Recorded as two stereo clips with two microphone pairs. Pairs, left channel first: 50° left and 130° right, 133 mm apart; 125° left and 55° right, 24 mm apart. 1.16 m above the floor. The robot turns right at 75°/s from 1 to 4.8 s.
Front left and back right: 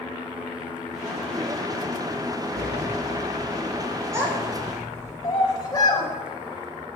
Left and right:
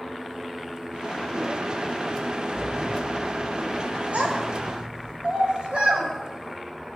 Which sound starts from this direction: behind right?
A sliding door, at 2.5 s.